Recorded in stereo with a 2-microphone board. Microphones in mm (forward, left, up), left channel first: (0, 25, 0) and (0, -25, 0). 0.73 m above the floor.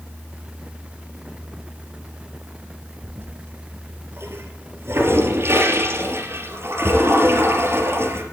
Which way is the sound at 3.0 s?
55° right (ahead or behind).